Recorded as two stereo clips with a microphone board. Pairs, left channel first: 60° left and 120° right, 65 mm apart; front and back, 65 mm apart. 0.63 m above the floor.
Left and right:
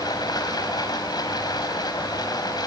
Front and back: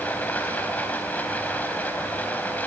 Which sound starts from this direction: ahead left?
Running water, at 0.0 s.